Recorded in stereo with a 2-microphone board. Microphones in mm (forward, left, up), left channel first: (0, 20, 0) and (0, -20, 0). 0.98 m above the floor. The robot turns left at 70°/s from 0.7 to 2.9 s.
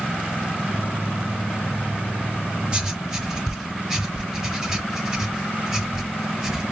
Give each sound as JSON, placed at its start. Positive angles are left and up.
{"t": 2.7, "sound": "writing", "side_deg": -20, "distance_m": 1.3}